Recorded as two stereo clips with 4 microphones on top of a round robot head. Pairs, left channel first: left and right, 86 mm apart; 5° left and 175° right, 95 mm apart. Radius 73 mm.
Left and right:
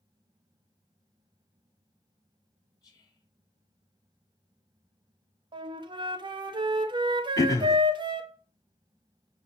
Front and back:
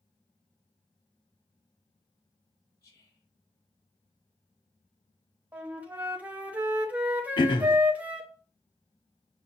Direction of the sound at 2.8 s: 45° left.